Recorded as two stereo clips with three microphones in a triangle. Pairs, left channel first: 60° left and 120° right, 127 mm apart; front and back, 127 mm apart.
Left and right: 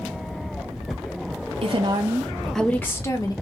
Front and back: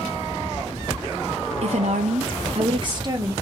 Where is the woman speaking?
155° right, 0.7 m; by 3.3 s 120° left, 1.0 m.